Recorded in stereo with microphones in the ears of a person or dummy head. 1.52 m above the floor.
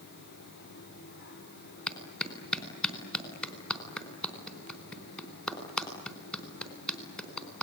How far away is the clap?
About 4.5 m.